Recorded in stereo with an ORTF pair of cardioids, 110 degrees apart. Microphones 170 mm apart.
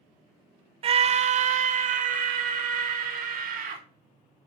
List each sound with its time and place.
0.8 s a scream: 35° right, 0.9 m; by 3.8 s 55° right, 3 m